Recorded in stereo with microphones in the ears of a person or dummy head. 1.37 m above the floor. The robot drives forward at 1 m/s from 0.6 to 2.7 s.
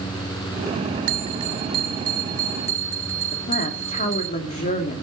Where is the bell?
45° right (ahead or behind), 0.9 m; by 4.3 s 15° right (ahead or behind), 2.5 m.